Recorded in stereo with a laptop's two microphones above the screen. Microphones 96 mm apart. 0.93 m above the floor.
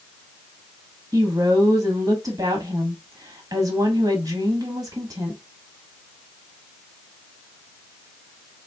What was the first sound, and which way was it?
A woman speaking, 35° right (ahead or behind).